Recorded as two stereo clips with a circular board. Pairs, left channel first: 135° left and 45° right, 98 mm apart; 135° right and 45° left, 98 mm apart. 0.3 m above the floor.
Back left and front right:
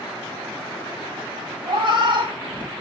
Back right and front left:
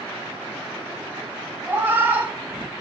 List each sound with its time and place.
1.7 s a cat meowing: 25° right, 1.2 m